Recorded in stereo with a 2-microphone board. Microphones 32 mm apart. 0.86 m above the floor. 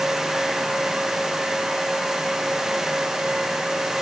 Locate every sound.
Only background noise.